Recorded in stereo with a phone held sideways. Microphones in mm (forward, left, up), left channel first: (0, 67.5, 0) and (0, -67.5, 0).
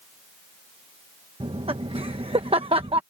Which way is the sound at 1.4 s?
45° right (ahead or behind).